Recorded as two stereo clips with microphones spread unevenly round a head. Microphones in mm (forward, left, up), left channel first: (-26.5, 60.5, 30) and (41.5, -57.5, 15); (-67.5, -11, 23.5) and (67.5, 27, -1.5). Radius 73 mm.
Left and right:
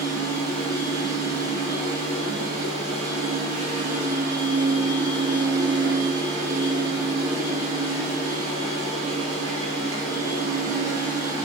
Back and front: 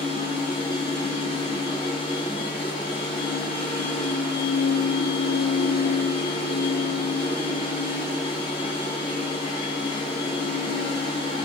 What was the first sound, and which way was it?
A machine running, 110° right.